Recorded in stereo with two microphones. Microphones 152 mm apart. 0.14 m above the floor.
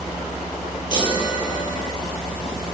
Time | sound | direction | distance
0.9 | a chime | 30° left (ahead or behind) | 2 m